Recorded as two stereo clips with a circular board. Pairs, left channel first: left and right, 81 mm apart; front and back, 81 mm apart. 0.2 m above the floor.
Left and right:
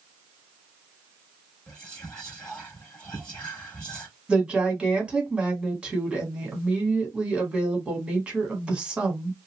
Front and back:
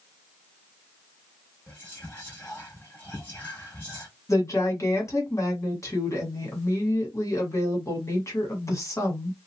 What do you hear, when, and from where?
1.7 s whispering: 30° left, 1.1 m
4.3 s a woman speaking: 20° right, 1.4 m